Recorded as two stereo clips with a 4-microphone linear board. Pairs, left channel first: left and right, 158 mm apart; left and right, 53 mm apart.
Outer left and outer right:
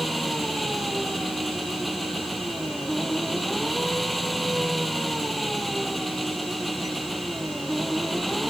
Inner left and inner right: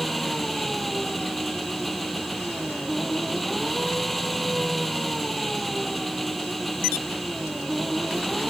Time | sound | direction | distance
0.0 | an engine running | centre (ahead or behind) | ?